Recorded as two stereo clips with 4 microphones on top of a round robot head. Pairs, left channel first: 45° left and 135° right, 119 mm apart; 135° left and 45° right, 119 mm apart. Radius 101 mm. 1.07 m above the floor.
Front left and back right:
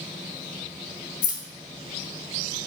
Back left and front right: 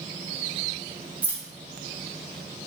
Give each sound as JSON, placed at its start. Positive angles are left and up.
{"t": 1.2, "sound": "keys jangling", "azimuth_deg": 30, "distance_m": 0.7}